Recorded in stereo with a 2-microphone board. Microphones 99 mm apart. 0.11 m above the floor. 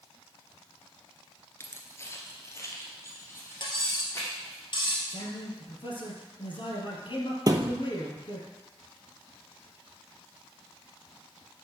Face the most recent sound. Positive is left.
turn(degrees=-40)  # may be behind; listen again after turning